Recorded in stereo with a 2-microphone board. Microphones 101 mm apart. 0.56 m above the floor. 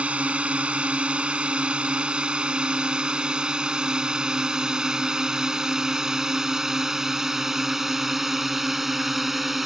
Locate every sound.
0.0 s a drone: 10° right (ahead or behind); by 9.7 s centre (ahead or behind)